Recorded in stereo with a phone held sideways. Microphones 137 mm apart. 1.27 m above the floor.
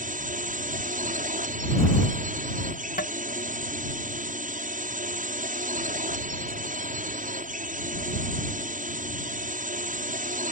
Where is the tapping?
85° left.